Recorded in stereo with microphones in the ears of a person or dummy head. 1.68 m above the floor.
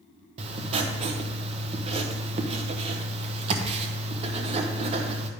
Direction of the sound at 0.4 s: 30° right (ahead or behind).